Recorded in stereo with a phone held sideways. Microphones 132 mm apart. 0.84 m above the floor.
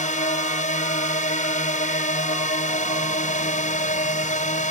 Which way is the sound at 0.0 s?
70° left (ahead or behind).